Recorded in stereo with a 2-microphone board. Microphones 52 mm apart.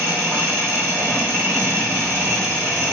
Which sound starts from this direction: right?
An engine running, at 0.0 s.